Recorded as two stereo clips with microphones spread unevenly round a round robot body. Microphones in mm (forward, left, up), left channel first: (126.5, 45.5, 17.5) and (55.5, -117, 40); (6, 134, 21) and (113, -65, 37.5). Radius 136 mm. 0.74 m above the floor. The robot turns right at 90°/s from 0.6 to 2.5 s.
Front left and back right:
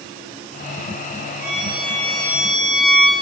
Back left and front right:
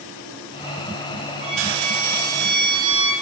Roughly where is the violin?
Behind right.